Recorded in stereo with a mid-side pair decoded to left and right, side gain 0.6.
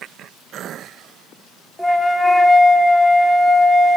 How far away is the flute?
About 0.5 m.